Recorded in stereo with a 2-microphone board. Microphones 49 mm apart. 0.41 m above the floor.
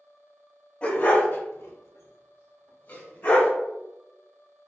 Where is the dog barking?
30° left (ahead or behind), 0.7 m.